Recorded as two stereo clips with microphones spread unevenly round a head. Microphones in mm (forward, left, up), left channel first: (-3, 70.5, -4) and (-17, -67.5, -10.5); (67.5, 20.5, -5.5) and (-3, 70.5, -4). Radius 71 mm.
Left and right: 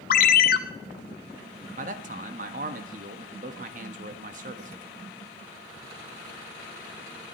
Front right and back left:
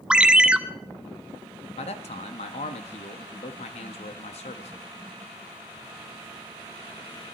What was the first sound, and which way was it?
A ringtone, 65° left.